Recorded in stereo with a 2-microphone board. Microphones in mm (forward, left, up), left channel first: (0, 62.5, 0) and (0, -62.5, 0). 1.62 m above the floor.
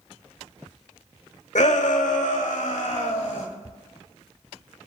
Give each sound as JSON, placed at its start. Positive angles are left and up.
{"t": 1.6, "sound": "a shout", "side_deg": 75, "distance_m": 0.8}